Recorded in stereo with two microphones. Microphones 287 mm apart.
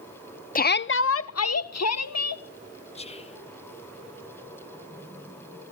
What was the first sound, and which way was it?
A shout, 30° left (ahead or behind).